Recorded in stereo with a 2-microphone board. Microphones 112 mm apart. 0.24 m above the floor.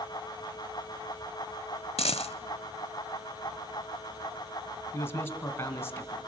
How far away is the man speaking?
About 2 m.